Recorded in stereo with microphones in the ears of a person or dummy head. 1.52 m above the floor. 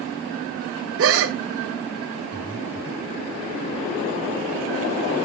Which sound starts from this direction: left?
Breathing, at 2.3 s.